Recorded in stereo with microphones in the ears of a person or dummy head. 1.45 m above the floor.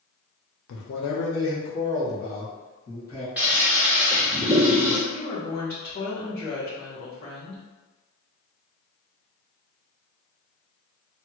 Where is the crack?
No crack in this recording.